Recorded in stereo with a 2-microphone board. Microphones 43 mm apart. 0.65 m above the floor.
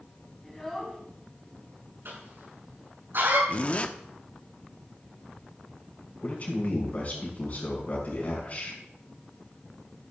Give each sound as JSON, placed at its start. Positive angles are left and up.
{"t": 0.4, "sound": "a child speaking", "side_deg": 5, "distance_m": 4.5}
{"t": 2.0, "sound": "a cough", "side_deg": -65, "distance_m": 7.0}
{"t": 3.5, "sound": "a zipper", "side_deg": 30, "distance_m": 1.0}
{"t": 6.2, "sound": "a man speaking", "side_deg": 35, "distance_m": 6.0}